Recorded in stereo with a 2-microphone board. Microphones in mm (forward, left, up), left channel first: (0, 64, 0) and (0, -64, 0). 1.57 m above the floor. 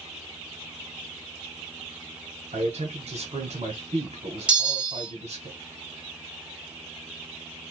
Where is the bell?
10° right (ahead or behind), 1.3 m.